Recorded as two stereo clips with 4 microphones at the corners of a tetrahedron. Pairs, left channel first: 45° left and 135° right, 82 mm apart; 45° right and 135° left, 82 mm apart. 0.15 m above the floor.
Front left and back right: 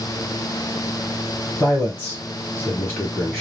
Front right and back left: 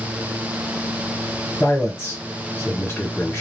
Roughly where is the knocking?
I don't hear knocking.